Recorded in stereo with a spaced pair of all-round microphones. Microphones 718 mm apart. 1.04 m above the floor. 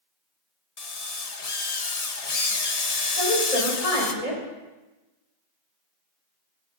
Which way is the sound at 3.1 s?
60° left (ahead or behind).